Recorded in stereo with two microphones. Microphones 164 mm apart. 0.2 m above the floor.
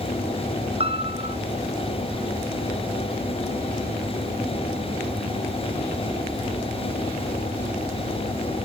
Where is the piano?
40° right (ahead or behind), 1.6 m.